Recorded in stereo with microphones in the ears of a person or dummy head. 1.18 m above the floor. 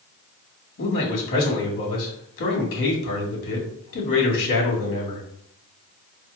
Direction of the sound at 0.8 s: 65° left (ahead or behind).